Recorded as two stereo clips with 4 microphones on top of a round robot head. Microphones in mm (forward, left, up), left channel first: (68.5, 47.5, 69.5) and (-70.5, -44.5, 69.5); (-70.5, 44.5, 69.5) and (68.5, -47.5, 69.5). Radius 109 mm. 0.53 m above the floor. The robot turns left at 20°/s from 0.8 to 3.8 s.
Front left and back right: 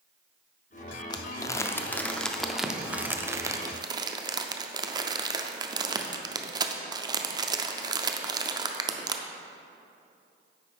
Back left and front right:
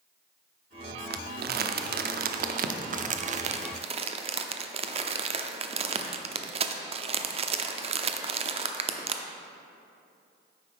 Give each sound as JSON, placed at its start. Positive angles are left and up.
{"t": 1.1, "sound": "crumpling", "azimuth_deg": -30, "distance_m": 0.5}